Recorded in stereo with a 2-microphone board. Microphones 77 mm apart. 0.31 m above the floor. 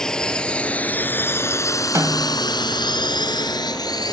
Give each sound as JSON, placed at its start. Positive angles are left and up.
{"t": 0.0, "sound": "a drone", "side_deg": 10}
{"t": 1.9, "sound": "a snare drum", "side_deg": -45}